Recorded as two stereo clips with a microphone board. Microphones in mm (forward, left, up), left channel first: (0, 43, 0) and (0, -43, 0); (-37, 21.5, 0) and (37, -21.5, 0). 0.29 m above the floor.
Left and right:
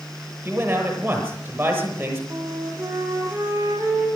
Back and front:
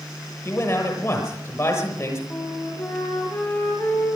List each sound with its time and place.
0.5 s a man speaking: 155° right, 7.5 m
2.3 s a flute: 145° right, 5 m